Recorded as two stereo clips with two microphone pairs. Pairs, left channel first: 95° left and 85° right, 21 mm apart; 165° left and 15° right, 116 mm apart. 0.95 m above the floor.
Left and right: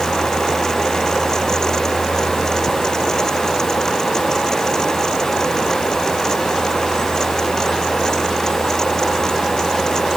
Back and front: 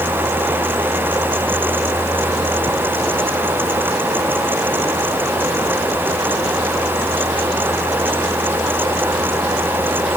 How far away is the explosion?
I don't hear an explosion.